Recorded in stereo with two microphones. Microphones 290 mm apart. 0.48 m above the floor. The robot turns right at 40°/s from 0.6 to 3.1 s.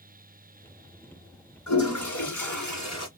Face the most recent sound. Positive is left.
turn(degrees=125)